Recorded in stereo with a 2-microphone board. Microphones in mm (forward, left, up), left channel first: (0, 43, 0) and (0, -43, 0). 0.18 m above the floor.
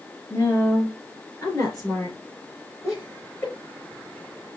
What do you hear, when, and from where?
0.3 s a woman speaking: 25° left (ahead or behind), 3.5 m; by 2.2 s 45° left (ahead or behind), 3.5 m
2.8 s laughter: 35° left (ahead or behind), 3.5 m